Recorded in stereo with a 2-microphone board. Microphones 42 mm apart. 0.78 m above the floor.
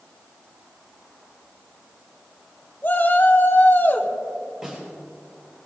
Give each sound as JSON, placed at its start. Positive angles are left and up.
{"t": 2.8, "sound": "a shout", "side_deg": 55, "distance_m": 3.0}
{"t": 4.6, "sound": "a snare drum", "side_deg": -15, "distance_m": 6.0}